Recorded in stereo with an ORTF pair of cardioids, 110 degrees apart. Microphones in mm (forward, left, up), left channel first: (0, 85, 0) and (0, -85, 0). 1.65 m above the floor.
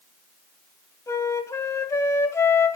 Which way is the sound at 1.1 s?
20° left.